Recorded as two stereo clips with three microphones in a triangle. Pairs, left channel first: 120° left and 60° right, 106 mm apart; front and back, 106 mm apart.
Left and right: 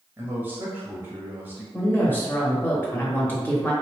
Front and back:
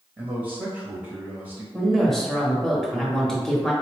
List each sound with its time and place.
0.2 s a man speaking: 115° right, 1.1 m
1.7 s a woman speaking: 80° left, 0.9 m